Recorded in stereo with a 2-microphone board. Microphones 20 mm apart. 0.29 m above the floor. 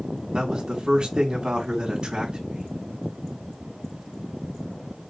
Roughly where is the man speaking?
Right.